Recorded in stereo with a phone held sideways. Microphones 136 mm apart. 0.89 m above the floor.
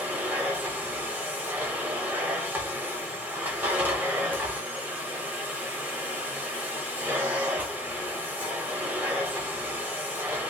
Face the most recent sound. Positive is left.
turn(degrees=-15)  # may be behind; listen again after turning